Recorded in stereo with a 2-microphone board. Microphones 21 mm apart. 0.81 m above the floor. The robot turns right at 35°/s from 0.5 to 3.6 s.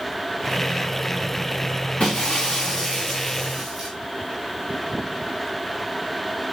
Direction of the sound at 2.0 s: 125° left.